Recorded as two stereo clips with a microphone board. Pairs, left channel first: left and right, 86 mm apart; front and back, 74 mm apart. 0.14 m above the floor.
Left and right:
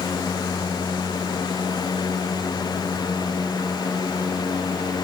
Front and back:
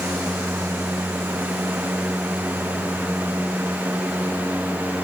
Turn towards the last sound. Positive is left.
No sound to turn to.